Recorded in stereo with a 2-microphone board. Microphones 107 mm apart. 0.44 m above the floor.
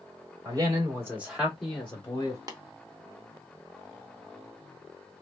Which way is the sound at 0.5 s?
35° right (ahead or behind).